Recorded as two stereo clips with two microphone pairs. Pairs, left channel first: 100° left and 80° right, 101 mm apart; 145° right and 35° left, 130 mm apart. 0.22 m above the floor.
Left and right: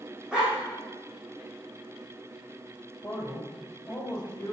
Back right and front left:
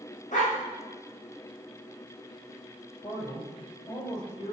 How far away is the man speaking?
About 6 m.